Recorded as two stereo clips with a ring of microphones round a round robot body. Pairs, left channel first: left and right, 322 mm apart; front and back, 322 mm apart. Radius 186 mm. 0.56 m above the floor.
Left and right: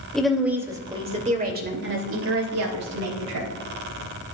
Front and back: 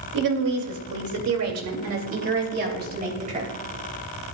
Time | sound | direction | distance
0.1 | a woman speaking | straight behind | 2.5 m